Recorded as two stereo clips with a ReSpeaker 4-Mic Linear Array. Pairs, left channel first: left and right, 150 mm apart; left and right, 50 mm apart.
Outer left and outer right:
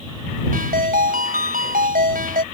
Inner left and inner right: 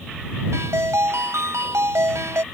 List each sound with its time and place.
0.5 s a ringtone: 80° right